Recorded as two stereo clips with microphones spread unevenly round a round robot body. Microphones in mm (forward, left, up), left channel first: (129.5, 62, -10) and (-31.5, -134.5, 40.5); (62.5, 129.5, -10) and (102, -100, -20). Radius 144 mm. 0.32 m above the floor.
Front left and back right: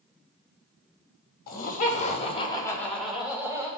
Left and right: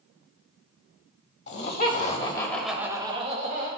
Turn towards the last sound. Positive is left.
turn(degrees=-45)